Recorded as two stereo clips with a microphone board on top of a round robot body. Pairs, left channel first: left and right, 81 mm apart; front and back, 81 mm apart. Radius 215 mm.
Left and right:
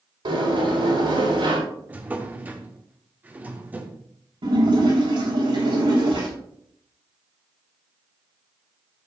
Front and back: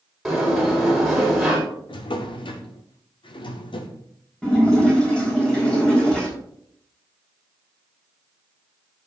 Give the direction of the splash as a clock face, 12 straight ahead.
3 o'clock.